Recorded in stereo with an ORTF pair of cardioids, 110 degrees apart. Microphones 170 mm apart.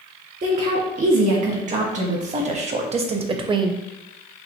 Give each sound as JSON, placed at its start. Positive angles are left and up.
{"t": 0.4, "sound": "a woman speaking", "azimuth_deg": -50, "distance_m": 2.0}